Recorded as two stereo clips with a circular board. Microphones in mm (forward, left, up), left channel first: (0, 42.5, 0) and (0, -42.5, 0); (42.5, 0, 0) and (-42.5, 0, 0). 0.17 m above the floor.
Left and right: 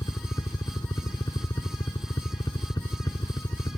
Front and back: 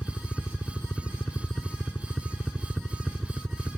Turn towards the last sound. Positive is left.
turn(degrees=90)